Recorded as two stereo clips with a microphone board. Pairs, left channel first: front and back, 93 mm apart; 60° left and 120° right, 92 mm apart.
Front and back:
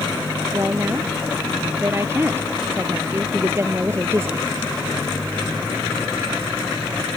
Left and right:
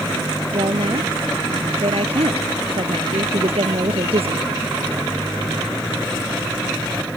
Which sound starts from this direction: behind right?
A woman speaking, at 0.5 s.